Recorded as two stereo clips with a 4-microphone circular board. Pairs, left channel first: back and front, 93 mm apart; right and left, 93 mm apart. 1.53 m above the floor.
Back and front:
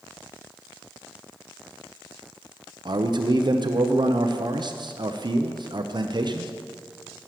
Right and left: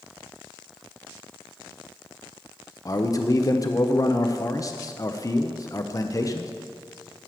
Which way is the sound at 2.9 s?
40° right.